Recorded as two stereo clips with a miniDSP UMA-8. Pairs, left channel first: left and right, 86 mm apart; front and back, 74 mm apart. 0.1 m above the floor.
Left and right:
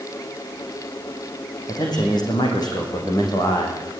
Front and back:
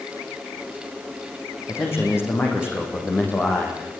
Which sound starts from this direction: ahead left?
A man speaking, at 1.7 s.